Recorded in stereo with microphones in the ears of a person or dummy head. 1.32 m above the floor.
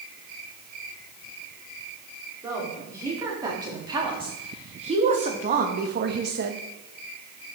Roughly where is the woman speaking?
Centre.